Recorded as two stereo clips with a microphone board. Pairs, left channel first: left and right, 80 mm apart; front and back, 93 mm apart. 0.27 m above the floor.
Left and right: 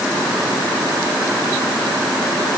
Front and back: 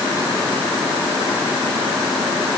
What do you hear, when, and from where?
Only background noise.